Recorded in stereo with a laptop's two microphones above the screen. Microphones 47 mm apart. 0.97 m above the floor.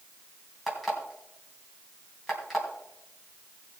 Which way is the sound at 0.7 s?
Centre (ahead or behind).